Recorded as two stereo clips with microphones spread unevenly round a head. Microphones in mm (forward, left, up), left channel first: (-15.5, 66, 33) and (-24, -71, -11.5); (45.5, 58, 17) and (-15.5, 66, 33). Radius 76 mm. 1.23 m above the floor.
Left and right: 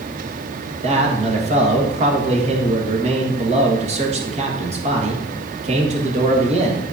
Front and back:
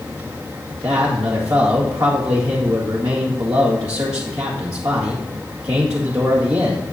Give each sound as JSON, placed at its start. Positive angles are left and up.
{"t": 0.7, "sound": "a man speaking", "azimuth_deg": -135, "distance_m": 1.8}